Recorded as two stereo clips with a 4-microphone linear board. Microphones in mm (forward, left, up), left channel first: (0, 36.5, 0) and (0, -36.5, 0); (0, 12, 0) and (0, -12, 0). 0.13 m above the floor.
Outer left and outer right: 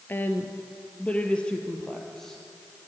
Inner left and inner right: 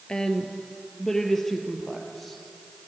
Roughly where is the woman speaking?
Left.